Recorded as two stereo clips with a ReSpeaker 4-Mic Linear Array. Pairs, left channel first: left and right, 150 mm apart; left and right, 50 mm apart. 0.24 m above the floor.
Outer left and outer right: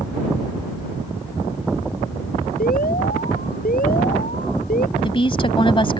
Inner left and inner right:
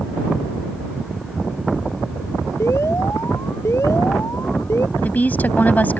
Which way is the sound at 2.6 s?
75° left (ahead or behind).